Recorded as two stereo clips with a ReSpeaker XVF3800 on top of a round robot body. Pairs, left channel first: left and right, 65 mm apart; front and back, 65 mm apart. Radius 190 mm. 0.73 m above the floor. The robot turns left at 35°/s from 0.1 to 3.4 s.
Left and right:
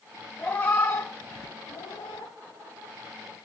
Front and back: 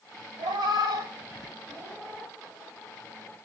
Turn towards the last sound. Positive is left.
turn(degrees=60)